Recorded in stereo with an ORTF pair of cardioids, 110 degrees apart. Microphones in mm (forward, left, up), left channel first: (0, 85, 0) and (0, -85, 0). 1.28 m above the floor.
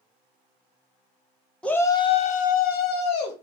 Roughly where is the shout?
Ahead.